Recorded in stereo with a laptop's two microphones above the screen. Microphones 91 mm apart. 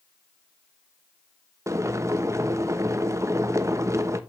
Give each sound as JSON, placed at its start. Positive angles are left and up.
{"t": 1.7, "sound": "boiling", "side_deg": -35, "distance_m": 0.9}